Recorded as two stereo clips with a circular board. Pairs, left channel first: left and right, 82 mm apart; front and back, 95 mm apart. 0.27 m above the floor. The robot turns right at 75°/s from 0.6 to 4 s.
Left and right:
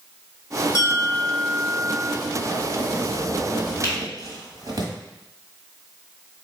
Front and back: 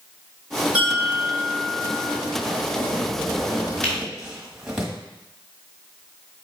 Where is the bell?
105° left, 1.5 m; by 2.1 s 150° right, 1.5 m.